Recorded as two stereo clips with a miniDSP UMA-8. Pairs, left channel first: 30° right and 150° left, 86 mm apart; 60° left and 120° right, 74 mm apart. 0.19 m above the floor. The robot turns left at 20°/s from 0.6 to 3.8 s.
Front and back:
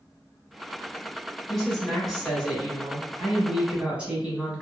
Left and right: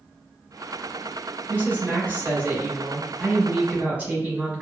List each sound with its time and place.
1.5 s a woman speaking: 110° right, 1.1 m; by 4.6 s 155° right, 1.1 m